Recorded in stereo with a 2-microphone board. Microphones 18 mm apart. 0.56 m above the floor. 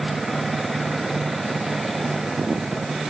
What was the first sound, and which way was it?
Only background noise.